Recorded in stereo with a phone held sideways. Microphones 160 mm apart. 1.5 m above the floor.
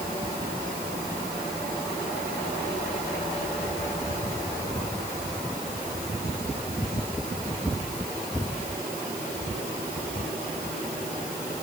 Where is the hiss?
No hiss in this recording.